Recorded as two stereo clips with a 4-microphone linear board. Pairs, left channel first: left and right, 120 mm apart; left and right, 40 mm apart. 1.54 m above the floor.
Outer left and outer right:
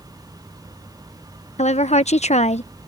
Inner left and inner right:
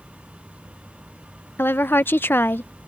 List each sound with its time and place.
1.6 s a woman speaking: 65° left (ahead or behind)